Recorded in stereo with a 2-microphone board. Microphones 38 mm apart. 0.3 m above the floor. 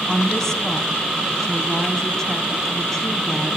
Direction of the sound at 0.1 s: 10° left (ahead or behind).